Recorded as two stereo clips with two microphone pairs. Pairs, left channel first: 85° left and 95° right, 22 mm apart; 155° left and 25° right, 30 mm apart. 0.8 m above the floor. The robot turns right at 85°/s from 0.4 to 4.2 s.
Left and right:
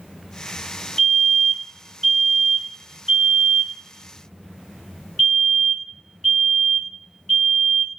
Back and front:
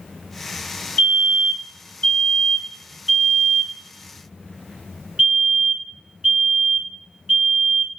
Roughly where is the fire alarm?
Left.